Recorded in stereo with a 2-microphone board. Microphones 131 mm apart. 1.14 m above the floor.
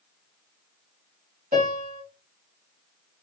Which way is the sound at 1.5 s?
70° right (ahead or behind).